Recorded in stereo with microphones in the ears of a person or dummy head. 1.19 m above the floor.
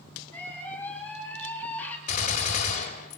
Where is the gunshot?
40° left (ahead or behind), 3 m.